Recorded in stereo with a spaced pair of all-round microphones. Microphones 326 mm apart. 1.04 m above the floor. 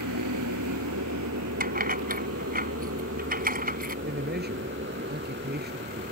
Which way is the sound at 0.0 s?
70° right (ahead or behind).